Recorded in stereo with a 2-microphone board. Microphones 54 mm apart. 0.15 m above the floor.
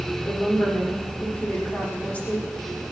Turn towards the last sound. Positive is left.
turn(degrees=30)  # may be behind; listen again after turning